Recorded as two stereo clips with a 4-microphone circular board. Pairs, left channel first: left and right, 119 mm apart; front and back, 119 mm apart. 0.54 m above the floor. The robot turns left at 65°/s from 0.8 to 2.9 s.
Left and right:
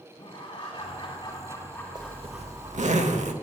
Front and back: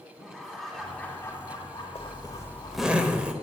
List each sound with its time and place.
0.2 s laughter: 90° left, 1.6 m; by 3.0 s 50° right, 1.6 m
1.9 s a zipper: 35° right, 0.7 m; by 3.3 s 100° right, 0.7 m